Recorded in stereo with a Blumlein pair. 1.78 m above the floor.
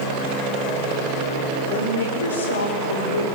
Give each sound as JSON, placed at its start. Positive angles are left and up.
{"t": 1.7, "sound": "a woman speaking", "azimuth_deg": 65, "distance_m": 6.0}